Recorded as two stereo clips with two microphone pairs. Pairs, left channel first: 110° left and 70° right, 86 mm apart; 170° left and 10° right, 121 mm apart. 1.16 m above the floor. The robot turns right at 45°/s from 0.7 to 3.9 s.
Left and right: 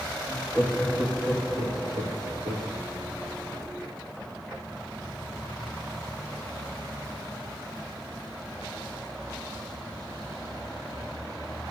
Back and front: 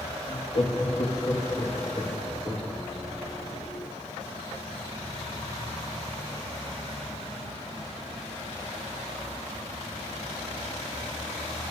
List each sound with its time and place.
0.3 s laughter: 155° right, 2.5 m; by 2.7 s 65° right, 2.5 m